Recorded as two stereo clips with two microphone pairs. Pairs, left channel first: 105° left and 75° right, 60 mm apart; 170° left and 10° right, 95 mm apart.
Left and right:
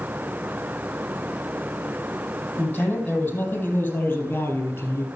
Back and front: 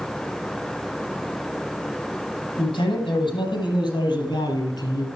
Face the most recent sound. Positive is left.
turn(degrees=145)